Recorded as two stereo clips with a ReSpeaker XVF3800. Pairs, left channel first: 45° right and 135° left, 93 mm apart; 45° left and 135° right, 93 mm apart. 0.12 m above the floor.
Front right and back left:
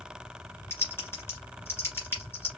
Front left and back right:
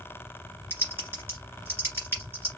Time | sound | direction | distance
0.7 | typing on a keyboard | 90° right | 2 m